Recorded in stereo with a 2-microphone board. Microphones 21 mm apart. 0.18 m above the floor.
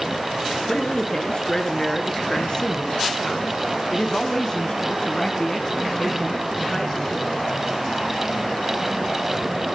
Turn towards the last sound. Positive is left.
turn(degrees=15)  # may be behind; listen again after turning